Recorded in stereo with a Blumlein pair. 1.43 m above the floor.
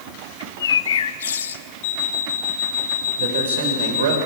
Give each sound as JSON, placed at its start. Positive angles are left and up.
{"t": 0.4, "sound": "a bird", "azimuth_deg": 65, "distance_m": 0.7}
{"t": 1.8, "sound": "an alarm clock", "azimuth_deg": 50, "distance_m": 1.7}
{"t": 3.2, "sound": "a man speaking", "azimuth_deg": -60, "distance_m": 5.0}